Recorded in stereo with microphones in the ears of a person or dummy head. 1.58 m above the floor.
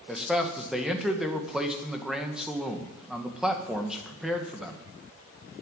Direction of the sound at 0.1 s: Centre (ahead or behind).